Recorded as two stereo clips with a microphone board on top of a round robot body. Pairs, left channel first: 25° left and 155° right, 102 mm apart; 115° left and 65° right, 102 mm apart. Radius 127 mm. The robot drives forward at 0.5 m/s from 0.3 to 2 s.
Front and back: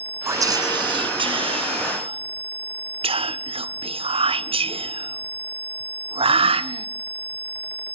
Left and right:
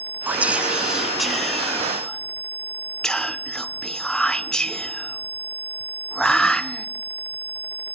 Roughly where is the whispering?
Behind right.